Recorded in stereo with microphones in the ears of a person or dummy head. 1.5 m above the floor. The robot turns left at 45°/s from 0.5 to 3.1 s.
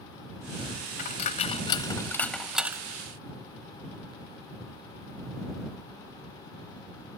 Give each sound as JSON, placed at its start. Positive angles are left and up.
{"t": 1.0, "sound": "a dropped coin", "side_deg": 45}